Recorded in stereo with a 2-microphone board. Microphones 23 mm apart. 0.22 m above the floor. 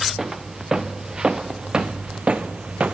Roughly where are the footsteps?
Right.